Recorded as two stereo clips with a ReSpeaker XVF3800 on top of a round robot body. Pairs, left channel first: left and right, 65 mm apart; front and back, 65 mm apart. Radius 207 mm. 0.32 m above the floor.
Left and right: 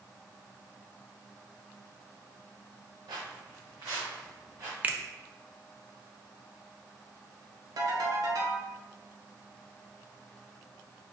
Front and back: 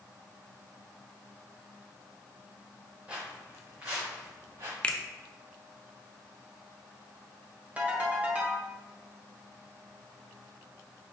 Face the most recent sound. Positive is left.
turn(degrees=-115)